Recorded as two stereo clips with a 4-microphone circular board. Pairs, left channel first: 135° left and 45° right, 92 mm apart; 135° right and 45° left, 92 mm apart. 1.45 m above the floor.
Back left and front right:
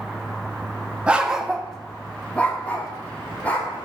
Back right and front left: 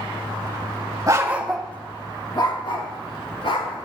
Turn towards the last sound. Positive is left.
turn(degrees=-155)